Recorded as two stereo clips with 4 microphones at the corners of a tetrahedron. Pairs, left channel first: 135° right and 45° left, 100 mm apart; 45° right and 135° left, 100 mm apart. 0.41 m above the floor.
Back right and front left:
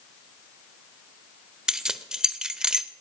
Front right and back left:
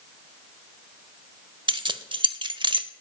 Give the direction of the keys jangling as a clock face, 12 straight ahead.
8 o'clock.